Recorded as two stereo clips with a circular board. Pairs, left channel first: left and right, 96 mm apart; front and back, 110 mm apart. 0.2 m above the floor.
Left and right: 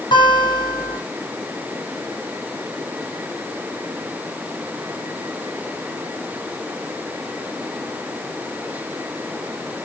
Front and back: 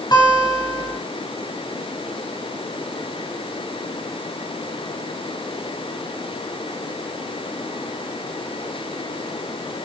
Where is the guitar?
55° left, 4.5 m.